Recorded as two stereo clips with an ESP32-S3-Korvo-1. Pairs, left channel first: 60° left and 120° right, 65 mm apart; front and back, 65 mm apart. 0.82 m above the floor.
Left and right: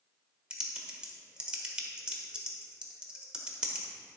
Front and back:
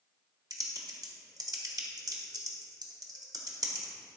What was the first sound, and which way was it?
Typing on a keyboard, 160° left.